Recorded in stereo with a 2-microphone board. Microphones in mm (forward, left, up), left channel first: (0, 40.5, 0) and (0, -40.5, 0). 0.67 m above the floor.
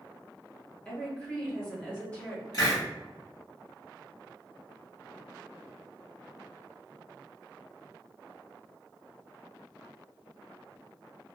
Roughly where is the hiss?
Left.